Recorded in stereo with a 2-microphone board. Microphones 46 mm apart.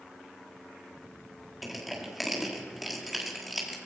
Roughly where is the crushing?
Centre.